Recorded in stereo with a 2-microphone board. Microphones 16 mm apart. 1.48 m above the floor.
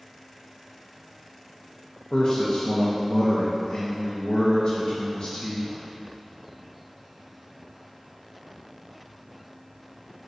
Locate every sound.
2.1 s a man speaking: 65° left (ahead or behind), 0.6 m